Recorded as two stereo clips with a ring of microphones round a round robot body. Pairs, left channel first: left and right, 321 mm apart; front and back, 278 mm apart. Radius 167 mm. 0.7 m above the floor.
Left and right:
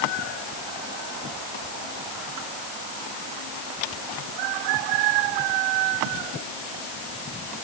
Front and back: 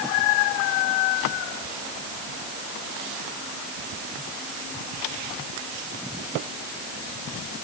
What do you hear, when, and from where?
Only background noise.